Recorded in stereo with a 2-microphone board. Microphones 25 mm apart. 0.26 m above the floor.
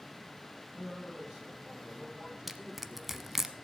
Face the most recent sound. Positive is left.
turn(degrees=-10)  # may be behind; listen again after turning